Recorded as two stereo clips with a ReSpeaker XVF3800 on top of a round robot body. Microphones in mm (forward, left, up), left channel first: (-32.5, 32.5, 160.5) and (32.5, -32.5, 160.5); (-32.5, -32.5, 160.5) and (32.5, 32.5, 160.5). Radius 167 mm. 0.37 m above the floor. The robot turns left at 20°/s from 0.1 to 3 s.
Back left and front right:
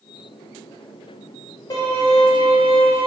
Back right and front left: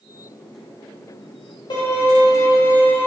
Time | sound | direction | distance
1.7 | a violin | 175° right | 0.9 m